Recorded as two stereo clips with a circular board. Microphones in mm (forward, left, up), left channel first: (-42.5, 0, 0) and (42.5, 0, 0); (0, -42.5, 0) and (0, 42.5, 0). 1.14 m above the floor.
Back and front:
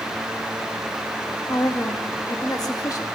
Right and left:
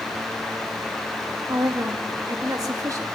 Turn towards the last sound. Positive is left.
turn(degrees=135)